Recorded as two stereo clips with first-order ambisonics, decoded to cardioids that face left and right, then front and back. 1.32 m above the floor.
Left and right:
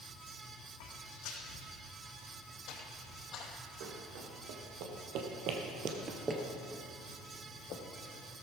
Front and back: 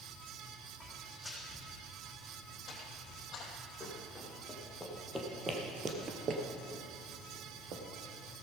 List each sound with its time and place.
0.8 s footsteps: 90° left, 4 m; by 3.5 s 45° left, 2.5 m
3.8 s running footsteps: 85° right, 4 m; by 7.8 s 135° left, 2.5 m